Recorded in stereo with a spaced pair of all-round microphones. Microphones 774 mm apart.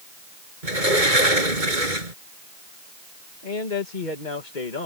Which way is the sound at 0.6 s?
80° right.